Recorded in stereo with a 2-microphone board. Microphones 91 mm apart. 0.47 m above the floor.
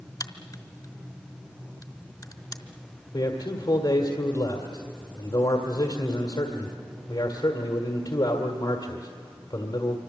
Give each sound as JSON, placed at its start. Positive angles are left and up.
{"t": 0.2, "sound": "a crack", "side_deg": 45, "distance_m": 1.5}
{"t": 3.1, "sound": "a man speaking", "side_deg": 55, "distance_m": 1.7}